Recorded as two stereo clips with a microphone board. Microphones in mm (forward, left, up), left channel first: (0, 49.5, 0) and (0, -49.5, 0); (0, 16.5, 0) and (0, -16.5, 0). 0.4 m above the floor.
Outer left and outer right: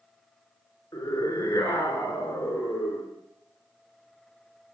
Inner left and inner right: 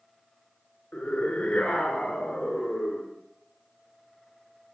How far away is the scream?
About 5.5 m.